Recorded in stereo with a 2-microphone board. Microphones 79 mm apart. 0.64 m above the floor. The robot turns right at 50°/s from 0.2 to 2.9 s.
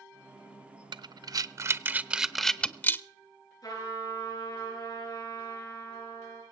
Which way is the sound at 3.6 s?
50° left (ahead or behind).